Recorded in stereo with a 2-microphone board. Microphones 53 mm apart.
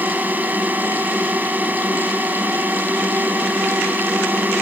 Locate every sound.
0.0 s a drone: 30° right (ahead or behind)